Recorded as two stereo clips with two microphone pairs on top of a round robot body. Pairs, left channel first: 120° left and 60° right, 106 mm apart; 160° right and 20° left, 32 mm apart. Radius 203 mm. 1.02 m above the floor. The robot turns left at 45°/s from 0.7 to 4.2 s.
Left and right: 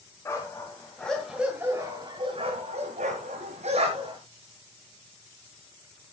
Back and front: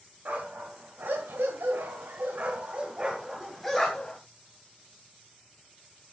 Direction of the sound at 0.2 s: 55° left.